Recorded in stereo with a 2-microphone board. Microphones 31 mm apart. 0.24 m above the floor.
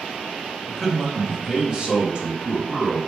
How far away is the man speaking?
About 1.1 m.